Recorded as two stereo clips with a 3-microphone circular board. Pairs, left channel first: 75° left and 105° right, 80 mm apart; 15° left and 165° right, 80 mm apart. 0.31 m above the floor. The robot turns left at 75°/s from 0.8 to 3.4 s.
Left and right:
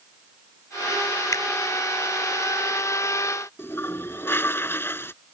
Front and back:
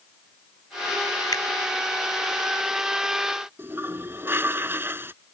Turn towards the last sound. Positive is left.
turn(degrees=135)